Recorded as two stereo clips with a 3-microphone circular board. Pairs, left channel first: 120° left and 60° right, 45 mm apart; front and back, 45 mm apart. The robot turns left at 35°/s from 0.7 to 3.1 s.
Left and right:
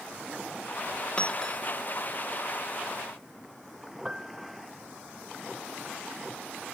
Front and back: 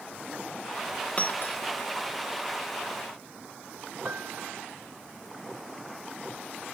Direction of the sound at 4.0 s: 135° right.